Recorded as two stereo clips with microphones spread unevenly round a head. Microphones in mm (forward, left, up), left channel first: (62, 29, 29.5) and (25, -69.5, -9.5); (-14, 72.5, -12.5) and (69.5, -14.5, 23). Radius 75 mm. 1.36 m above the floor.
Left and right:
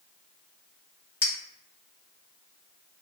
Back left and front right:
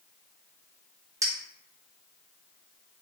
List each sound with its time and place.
1.2 s a clink: 10° left, 1.5 m